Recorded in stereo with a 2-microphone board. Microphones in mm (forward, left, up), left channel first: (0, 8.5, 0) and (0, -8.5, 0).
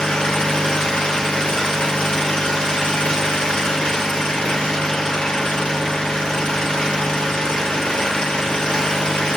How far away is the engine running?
About 1.6 m.